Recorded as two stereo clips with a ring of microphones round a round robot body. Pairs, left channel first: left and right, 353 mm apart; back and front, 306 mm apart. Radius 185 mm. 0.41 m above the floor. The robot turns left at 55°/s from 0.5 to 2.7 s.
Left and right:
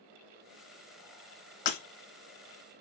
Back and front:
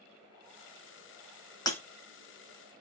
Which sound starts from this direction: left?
Breaking glass, at 1.7 s.